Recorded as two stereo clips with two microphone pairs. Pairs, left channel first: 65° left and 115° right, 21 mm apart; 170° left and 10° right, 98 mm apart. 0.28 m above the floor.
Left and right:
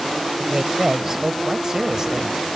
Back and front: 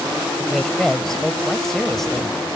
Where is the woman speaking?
105° right.